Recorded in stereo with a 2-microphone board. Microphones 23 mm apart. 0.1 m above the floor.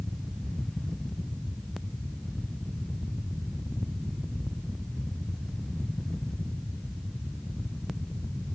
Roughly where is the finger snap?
No finger snap in this recording.